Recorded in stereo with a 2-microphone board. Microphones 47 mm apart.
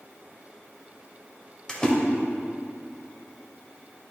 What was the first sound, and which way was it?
A splash, 15° left (ahead or behind).